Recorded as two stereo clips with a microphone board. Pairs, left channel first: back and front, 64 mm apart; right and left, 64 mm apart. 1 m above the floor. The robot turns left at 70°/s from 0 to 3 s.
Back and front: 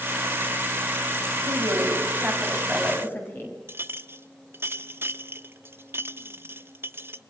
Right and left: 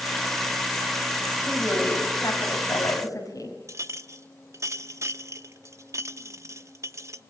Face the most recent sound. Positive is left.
turn(degrees=50)